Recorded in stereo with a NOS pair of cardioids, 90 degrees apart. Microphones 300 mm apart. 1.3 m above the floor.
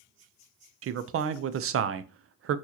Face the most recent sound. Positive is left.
turn(degrees=-50)